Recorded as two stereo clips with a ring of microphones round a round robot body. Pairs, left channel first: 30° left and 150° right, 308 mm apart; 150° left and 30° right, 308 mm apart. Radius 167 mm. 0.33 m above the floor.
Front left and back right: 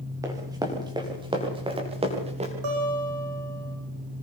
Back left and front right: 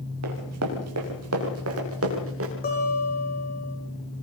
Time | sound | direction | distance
0.2 | running footsteps | 70° right | 6.5 m
2.6 | a guitar | 150° right | 8 m